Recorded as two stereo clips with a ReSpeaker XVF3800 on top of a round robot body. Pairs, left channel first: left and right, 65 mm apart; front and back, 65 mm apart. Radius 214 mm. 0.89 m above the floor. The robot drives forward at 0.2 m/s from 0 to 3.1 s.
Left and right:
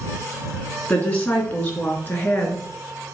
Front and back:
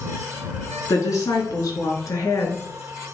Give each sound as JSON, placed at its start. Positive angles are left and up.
{"t": 0.9, "sound": "a woman speaking", "azimuth_deg": 35, "distance_m": 3.0}